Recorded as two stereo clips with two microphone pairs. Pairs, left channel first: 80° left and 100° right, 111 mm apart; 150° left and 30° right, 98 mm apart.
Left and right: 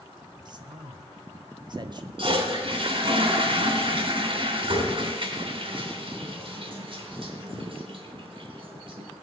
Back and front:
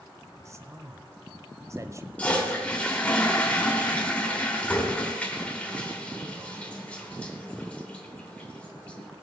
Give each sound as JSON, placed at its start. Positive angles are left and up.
{"t": 0.5, "sound": "a man speaking", "azimuth_deg": -80, "distance_m": 1.3}
{"t": 2.2, "sound": "a toilet flushing", "azimuth_deg": -135, "distance_m": 3.0}